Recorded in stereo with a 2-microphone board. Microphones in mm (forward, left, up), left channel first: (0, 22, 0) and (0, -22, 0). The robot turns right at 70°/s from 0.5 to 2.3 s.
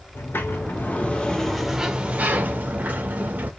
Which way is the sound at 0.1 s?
105° left.